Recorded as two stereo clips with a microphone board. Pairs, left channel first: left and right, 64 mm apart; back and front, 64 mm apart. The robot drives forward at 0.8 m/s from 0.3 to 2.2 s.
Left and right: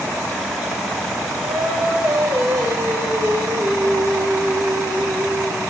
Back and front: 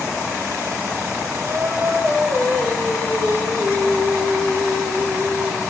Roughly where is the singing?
Ahead right.